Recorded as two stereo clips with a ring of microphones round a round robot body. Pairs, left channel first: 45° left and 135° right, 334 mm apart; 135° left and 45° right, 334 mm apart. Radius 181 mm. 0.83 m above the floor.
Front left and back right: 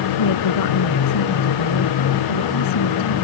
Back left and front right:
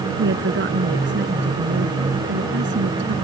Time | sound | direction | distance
0.2 | a woman speaking | 15° left | ?